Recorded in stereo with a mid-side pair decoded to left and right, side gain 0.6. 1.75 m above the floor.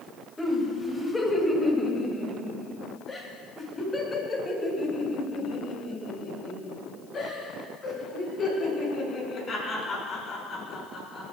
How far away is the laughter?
About 3.5 m.